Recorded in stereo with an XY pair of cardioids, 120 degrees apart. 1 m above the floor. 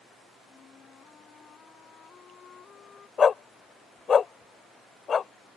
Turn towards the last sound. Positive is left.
turn(degrees=35)